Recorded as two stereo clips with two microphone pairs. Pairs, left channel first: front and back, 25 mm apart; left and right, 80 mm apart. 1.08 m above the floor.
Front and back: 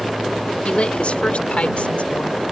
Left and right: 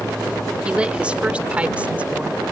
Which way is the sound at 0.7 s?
15° right.